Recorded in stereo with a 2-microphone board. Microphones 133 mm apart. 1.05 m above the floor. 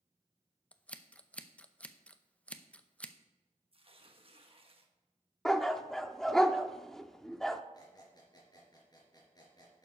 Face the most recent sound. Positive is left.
turn(degrees=30)  # may be behind; listen again after turning